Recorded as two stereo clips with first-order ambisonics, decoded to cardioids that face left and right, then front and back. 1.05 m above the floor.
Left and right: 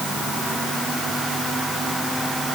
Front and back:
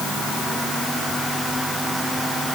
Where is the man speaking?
No man speaking in this recording.